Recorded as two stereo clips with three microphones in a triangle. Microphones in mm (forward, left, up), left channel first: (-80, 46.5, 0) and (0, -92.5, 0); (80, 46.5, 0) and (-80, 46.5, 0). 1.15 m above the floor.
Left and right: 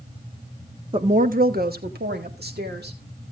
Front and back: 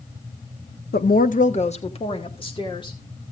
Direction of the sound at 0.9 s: 5° right.